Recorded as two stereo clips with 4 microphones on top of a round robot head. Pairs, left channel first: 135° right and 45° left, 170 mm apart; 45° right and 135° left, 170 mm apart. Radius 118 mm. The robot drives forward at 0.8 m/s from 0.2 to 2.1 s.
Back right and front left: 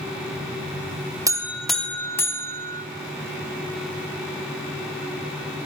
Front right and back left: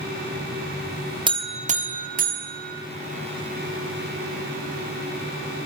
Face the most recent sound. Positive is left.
turn(degrees=150)